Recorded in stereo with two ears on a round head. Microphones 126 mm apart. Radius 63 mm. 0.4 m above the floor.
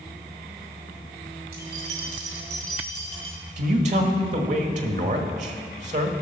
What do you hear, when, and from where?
1.5 s keys jangling: 70° right (ahead or behind), 2 m; by 3.4 s 40° right (ahead or behind), 2.5 m
3.6 s a man speaking: 55° right (ahead or behind), 1.3 m